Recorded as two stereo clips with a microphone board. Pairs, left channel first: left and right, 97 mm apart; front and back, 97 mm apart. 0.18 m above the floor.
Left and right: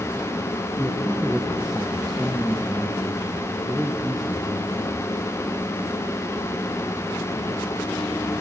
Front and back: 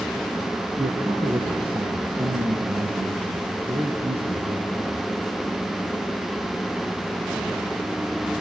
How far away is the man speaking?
About 2.5 m.